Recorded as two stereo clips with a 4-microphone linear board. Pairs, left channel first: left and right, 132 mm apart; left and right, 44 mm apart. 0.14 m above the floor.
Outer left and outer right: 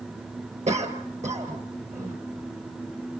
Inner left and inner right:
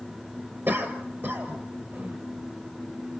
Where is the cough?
60° right (ahead or behind), 4 m.